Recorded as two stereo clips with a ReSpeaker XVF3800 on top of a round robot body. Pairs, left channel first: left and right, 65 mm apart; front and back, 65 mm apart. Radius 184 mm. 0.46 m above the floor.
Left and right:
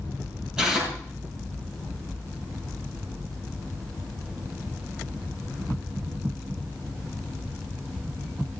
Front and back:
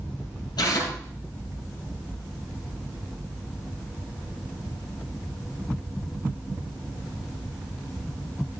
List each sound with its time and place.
0.6 s tearing paper: 10° right, 7.5 m